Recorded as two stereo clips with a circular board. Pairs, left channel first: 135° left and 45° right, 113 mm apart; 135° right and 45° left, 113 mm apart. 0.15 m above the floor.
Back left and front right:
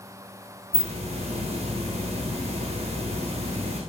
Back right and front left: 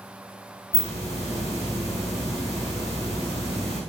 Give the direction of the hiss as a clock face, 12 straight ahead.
2 o'clock.